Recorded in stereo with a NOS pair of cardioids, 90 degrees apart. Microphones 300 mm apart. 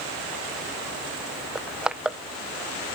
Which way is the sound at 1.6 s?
5° right.